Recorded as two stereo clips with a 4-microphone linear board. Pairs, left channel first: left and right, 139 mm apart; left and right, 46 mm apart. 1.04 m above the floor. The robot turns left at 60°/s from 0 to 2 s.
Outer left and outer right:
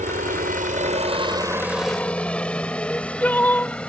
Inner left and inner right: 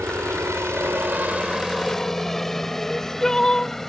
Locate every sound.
0.0 s a helicopter: 60° right (ahead or behind); by 3.9 s 5° left (ahead or behind)
2.8 s crying: 10° left (ahead or behind)